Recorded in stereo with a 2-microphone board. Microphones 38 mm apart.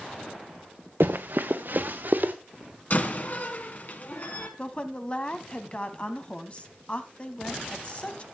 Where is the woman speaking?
30° left (ahead or behind), 1.2 m.